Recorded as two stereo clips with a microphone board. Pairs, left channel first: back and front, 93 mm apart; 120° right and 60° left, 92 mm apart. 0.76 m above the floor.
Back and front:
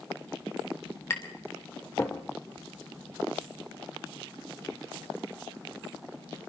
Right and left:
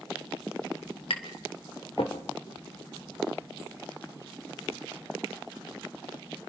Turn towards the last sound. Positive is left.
turn(degrees=-120)